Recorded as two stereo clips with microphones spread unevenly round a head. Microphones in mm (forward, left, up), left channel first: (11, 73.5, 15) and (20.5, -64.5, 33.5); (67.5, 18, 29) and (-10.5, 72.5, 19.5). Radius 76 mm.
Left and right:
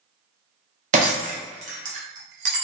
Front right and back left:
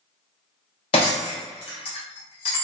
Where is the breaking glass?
70° right, 0.6 m.